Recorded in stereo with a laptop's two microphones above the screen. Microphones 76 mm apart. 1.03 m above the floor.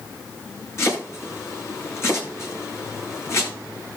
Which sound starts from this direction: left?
Chopping, at 0.8 s.